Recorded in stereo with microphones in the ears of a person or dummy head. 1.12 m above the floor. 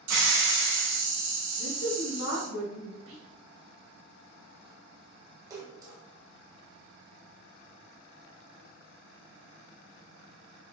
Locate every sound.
0.1 s a hiss: 85° right, 1.4 m
1.6 s a woman speaking: 70° left (ahead or behind), 0.8 m
3.1 s whispering: 70° right (ahead or behind), 1.2 m
5.5 s a splash: 15° right (ahead or behind), 0.9 m